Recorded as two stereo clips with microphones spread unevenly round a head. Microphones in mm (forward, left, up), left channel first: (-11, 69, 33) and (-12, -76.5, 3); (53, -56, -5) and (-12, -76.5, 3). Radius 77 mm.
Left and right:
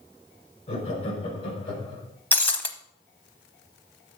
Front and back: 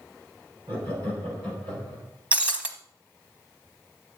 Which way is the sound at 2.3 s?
145° left.